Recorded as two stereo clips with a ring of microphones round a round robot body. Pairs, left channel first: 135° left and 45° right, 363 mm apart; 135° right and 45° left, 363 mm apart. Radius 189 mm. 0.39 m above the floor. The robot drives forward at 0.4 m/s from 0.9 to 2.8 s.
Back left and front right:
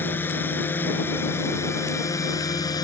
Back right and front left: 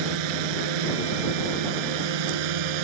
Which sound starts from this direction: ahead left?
A drone, at 0.0 s.